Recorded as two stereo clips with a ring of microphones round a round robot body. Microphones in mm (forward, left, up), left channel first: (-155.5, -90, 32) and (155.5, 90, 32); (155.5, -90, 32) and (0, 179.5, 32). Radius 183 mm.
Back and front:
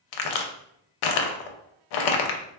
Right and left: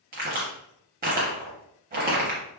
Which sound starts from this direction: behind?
A crack, at 0.1 s.